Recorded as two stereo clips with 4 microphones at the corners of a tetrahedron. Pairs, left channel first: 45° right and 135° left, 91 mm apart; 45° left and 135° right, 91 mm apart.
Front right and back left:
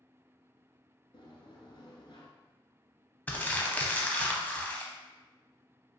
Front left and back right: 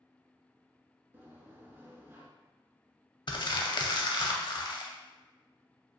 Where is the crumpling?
25° left, 0.6 m.